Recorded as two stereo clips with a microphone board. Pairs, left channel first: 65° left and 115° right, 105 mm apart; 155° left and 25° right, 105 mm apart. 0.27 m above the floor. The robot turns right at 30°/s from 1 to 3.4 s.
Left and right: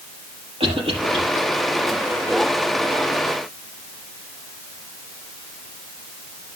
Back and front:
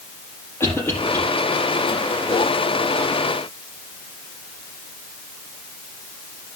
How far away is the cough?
About 6.5 m.